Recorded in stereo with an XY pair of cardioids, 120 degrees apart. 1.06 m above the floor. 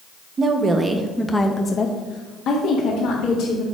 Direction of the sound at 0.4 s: 40° right.